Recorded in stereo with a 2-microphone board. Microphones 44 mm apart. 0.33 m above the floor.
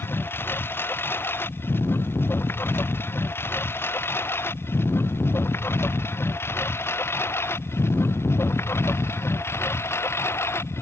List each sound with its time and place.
0.0 s a lawn mower: 55° left (ahead or behind); by 10.8 s 70° left (ahead or behind)